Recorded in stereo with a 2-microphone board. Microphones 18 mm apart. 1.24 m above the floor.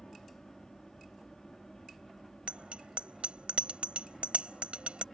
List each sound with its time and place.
0.0 s an aircraft: 35° left (ahead or behind); by 5.1 s 25° left (ahead or behind)
2.5 s a bicycle bell: 85° right